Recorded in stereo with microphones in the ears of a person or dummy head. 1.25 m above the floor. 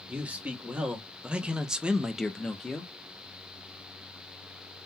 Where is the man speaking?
5° right (ahead or behind), 1.5 m; by 2.9 s 5° left (ahead or behind), 0.6 m.